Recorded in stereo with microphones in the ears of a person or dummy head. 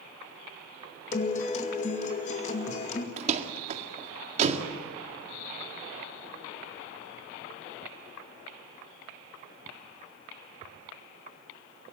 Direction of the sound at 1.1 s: 45° left (ahead or behind).